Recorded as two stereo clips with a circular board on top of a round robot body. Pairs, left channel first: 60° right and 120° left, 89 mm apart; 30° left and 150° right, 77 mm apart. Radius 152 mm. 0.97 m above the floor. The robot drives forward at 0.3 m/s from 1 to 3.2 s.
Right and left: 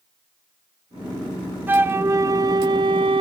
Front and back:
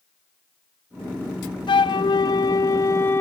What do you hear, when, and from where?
1.7 s a flute: 50° left, 0.6 m; by 3.2 s 95° left, 0.5 m